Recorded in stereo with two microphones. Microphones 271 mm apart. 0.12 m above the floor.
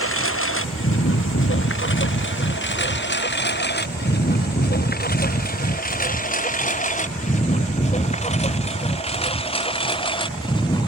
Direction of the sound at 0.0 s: 55° left (ahead or behind).